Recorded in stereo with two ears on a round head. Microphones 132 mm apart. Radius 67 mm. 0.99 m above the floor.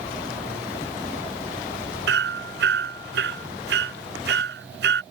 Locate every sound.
2.1 s hammering: 85° right